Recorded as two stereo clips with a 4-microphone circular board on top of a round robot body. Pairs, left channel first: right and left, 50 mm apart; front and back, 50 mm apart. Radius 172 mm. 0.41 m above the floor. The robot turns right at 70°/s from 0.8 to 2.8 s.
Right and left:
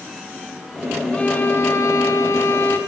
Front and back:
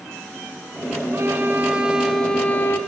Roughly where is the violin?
Behind right.